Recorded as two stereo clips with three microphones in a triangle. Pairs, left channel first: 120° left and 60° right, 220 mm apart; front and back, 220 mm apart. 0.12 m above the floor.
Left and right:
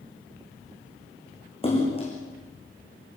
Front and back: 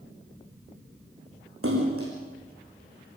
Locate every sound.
1.6 s a splash: 175° right, 9 m